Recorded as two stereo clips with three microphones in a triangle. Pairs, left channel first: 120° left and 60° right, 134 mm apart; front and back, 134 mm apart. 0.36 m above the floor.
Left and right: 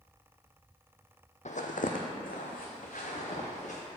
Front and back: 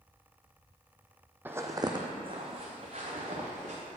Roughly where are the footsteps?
Left.